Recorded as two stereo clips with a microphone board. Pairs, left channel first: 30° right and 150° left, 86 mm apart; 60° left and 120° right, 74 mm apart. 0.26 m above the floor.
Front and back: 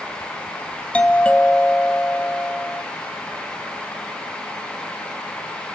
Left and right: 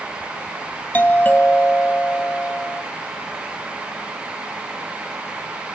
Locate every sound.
0.9 s a doorbell: 30° left, 1.7 m